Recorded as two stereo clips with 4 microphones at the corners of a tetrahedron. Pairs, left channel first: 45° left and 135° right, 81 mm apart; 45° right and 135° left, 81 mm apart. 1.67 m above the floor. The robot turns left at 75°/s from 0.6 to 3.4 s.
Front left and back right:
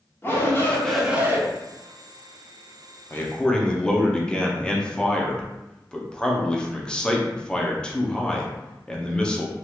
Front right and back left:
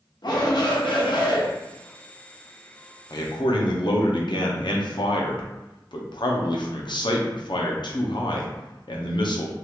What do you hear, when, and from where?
0.2 s a shout: 15° right, 0.8 m; by 1.4 s 80° right, 0.8 m
3.1 s a man speaking: 10° right, 0.6 m; by 9.5 s 35° right, 0.6 m